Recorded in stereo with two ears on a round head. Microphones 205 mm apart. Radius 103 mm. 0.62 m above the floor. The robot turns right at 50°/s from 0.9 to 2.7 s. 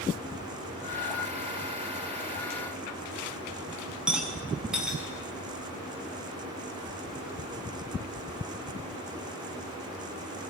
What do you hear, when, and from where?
4.1 s a rattle: 5° right (ahead or behind), 6.5 m